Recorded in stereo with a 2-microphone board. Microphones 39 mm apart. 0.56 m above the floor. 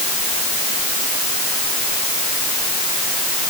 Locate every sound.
Only background noise.